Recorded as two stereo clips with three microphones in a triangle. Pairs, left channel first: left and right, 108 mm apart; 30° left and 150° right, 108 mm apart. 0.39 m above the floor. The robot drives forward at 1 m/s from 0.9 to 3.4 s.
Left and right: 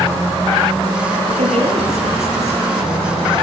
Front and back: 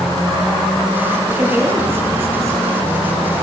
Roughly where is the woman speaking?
Right.